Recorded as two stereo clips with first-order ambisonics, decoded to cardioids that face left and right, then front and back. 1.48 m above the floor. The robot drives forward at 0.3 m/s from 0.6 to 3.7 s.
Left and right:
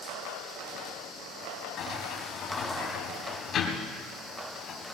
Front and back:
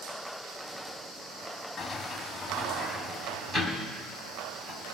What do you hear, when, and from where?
1.8 s a sliding door: 70° left, 1.5 m; by 5.0 s 110° left, 1.5 m